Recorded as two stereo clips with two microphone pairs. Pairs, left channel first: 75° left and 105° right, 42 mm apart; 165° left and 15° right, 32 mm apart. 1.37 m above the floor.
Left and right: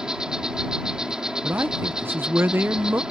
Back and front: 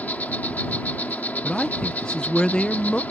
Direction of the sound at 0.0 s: 175° right.